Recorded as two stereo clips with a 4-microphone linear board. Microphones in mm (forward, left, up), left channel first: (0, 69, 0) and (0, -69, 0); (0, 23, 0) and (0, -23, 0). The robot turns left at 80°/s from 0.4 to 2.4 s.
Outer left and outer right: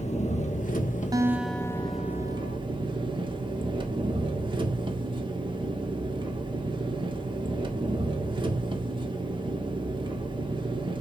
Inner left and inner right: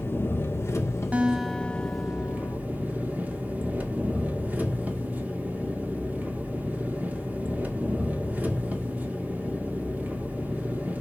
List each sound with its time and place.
0.0 s an engine running: 125° left, 1.5 m; by 11.0 s 35° right, 1.5 m
1.1 s a guitar: 150° right, 0.8 m; by 2.6 s 105° left, 0.8 m